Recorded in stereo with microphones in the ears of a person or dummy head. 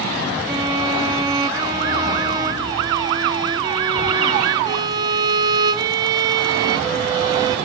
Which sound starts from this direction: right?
A violin, at 0.5 s.